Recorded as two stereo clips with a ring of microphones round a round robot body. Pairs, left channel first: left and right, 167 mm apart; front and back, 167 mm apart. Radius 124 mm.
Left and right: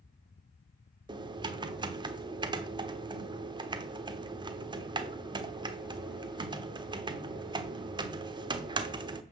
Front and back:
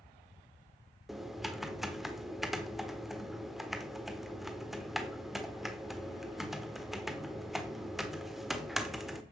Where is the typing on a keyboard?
95° right, 1.3 m.